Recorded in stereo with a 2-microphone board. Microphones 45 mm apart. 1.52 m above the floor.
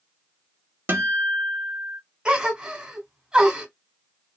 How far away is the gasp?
About 1.6 m.